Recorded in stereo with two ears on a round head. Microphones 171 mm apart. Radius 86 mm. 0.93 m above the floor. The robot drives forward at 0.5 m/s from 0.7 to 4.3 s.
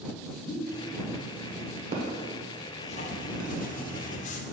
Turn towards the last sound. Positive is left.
turn(degrees=40)  # may be behind; listen again after turning